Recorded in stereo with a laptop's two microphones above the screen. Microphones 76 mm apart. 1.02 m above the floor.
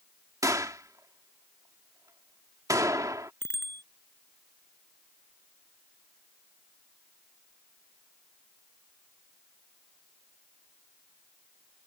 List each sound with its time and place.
0.4 s a gunshot: 50° right (ahead or behind)
3.4 s a bicycle bell: 30° left (ahead or behind)